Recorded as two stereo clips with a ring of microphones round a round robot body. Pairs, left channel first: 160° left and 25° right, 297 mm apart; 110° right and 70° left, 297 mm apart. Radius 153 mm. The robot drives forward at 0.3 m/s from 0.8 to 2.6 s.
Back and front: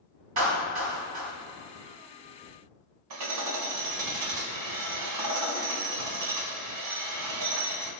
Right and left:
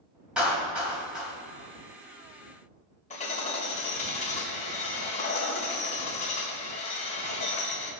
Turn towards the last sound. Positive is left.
turn(degrees=-45)